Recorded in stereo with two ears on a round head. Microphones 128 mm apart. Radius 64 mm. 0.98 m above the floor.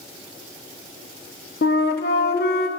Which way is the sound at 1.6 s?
75° left (ahead or behind).